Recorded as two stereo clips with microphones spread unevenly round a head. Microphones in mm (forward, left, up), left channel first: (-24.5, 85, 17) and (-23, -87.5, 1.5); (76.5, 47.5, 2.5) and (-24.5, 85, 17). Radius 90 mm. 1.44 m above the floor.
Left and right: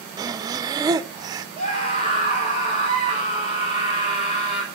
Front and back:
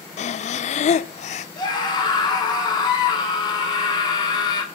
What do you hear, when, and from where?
0.2 s breathing: 20° right, 0.6 m
1.6 s a scream: 30° left, 6 m